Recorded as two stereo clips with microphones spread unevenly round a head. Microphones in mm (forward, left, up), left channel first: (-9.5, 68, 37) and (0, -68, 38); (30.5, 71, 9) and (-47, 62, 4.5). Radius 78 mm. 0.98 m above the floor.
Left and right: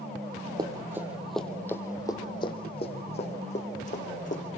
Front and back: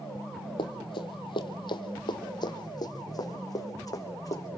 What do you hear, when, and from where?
0.6 s running footsteps: 25° right, 1.9 m; by 4.6 s 55° left, 4.5 m